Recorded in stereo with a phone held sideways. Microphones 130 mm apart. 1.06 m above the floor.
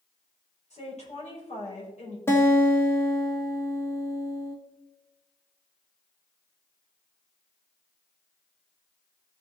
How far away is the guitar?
About 1.3 m.